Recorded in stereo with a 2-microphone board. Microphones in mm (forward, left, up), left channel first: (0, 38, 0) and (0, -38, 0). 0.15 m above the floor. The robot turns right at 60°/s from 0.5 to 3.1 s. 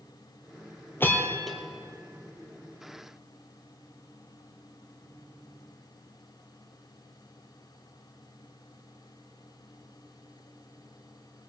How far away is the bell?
About 2.5 m.